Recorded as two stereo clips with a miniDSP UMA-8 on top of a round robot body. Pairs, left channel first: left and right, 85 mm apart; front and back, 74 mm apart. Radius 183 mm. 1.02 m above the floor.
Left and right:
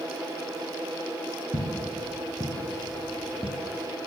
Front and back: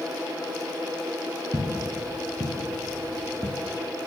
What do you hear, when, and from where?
1.5 s footsteps: 135° right, 2.5 m; by 3.6 s 55° left, 1.2 m